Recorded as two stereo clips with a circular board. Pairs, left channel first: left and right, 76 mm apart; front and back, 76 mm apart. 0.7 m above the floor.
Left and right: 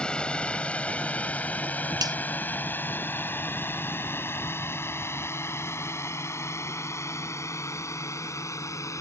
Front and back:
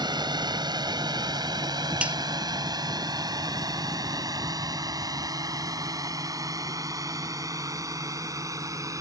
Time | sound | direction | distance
0.0 | a drone | 165° left | ?
2.0 | a finger snap | 105° right | ?